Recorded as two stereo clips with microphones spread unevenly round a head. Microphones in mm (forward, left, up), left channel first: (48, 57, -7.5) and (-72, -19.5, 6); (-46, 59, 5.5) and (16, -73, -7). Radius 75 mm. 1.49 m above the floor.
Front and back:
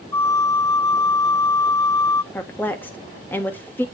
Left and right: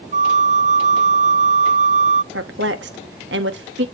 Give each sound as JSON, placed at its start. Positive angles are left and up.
{"t": 0.1, "sound": "a flute", "azimuth_deg": -40, "distance_m": 0.6}
{"t": 2.3, "sound": "a woman speaking", "azimuth_deg": -45, "distance_m": 1.5}